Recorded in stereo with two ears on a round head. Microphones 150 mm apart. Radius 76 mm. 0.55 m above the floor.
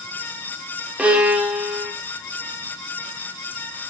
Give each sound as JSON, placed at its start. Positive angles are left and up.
{"t": 1.0, "sound": "a violin", "side_deg": -10, "distance_m": 1.4}